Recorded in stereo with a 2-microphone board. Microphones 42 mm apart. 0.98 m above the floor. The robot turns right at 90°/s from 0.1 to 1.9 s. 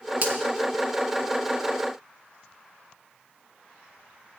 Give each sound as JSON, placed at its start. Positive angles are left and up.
{"t": 0.2, "sound": "a finger snap", "side_deg": -45, "distance_m": 1.9}